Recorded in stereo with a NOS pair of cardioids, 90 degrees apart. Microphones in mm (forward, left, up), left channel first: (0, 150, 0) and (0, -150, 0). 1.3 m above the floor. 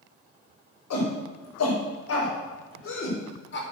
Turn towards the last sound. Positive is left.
turn(degrees=35)